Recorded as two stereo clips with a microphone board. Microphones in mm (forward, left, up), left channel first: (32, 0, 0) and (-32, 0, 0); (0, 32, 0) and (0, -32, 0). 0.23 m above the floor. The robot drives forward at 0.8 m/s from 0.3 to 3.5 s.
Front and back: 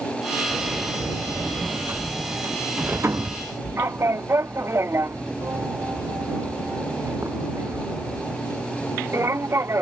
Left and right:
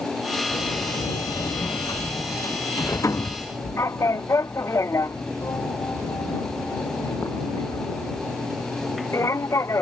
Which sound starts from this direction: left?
A sliding door, at 0.5 s.